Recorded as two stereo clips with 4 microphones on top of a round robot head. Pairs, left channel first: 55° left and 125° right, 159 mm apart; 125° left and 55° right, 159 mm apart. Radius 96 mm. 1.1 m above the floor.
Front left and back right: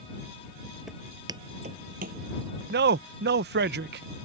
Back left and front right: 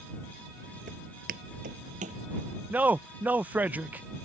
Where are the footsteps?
40° right; by 2.2 s 100° right.